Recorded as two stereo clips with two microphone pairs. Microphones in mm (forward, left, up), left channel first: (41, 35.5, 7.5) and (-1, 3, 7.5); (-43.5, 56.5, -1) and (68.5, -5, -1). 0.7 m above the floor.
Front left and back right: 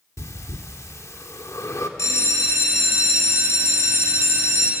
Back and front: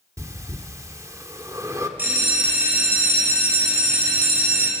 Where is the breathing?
35° left, 1.6 m.